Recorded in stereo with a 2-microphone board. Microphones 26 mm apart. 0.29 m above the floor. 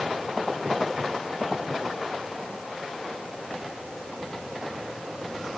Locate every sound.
Only background noise.